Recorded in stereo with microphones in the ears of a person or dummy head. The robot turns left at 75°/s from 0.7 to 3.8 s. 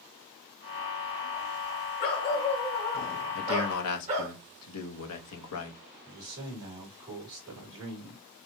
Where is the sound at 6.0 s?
15° right (ahead or behind), 2 m.